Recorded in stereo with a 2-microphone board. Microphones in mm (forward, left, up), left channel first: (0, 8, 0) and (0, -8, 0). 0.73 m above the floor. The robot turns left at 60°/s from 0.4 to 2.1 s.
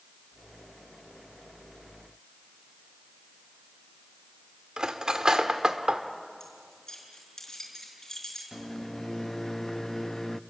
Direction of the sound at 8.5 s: 20° left (ahead or behind).